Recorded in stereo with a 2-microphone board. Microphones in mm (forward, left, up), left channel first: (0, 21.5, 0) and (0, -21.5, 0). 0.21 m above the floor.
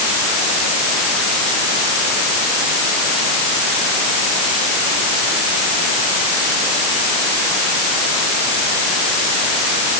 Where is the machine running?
I don't hear a machine running.